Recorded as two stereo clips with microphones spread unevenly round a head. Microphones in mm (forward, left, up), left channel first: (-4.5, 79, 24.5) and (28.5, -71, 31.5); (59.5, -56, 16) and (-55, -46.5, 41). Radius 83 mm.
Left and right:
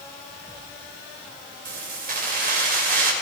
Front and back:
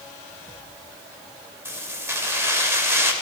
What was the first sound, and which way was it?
Keys jangling, 115° right.